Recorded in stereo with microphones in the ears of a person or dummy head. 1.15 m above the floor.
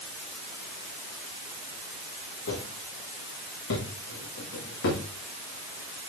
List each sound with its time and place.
2.5 s footsteps: 80° left, 5.5 m; by 5.0 s 75° left (ahead or behind), 7.5 m